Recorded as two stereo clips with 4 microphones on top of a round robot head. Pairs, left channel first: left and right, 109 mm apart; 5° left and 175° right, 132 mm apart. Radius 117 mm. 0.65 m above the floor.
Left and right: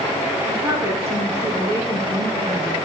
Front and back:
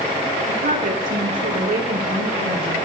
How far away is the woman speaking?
About 8 m.